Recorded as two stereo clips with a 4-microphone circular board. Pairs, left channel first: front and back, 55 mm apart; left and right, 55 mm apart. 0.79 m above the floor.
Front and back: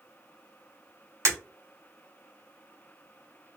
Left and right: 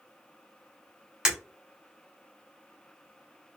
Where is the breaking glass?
165° right, 1.8 m.